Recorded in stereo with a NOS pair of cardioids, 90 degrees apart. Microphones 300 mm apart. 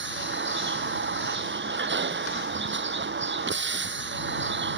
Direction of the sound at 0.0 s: 35° right.